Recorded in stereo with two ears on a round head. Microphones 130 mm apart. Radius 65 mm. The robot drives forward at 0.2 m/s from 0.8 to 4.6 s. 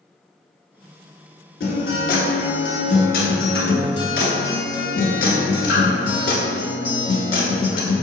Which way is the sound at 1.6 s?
75° left (ahead or behind).